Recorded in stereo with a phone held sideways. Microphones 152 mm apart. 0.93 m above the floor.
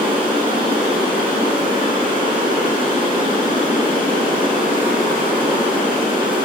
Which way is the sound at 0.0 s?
30° right (ahead or behind).